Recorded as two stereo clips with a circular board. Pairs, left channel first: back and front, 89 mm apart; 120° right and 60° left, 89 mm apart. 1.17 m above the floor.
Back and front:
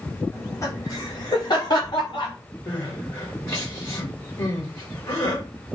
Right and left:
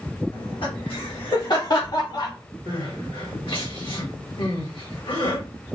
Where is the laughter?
120° right, 1.6 m; by 2.3 s 150° right, 2.5 m.